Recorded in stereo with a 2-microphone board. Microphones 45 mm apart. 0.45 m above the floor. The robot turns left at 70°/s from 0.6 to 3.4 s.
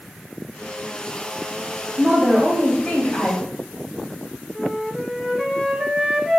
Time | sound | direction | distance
2.0 | a woman speaking | 150° right | 1.5 m
4.5 | a flute | 5° right (ahead or behind) | 0.5 m